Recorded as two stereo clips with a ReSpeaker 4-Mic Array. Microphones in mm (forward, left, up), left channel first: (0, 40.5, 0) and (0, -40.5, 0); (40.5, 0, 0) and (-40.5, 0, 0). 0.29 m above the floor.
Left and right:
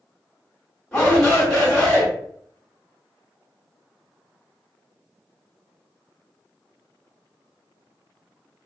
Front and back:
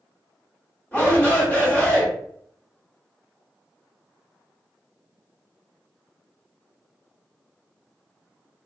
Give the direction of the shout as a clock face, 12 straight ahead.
11 o'clock.